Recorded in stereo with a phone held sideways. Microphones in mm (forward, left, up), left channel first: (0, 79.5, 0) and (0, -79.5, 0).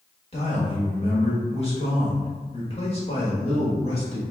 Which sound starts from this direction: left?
A man speaking, at 0.3 s.